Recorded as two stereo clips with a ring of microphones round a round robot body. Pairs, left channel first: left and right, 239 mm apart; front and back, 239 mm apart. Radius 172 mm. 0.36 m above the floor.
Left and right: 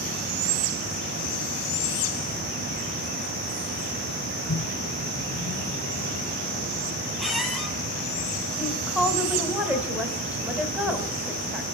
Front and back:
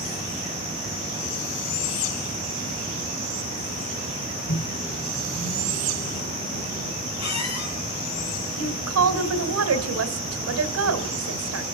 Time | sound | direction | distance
4.5 | a microwave | 45° left | 1.8 m
7.2 | a squeak | straight ahead | 7 m
8.6 | a woman speaking | 175° right | 2 m